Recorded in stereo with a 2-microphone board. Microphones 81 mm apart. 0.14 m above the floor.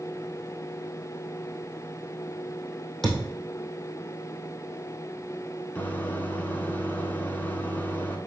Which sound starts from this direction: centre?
A thud, at 3.0 s.